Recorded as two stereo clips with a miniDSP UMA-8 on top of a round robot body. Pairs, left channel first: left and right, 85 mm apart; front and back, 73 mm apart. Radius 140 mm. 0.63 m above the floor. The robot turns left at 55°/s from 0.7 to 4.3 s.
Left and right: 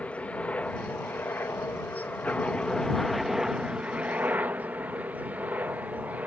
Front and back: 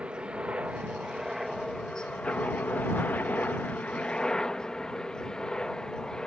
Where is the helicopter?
135° left; by 6.3 s 60° right.